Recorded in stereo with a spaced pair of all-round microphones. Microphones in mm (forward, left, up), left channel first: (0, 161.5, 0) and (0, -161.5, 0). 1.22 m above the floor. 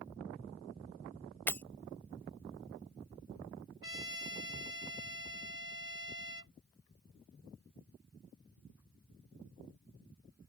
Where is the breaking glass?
5° left (ahead or behind).